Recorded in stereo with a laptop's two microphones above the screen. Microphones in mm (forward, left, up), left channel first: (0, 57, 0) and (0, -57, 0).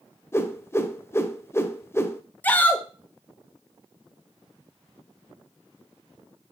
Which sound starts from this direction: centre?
A shout, at 2.4 s.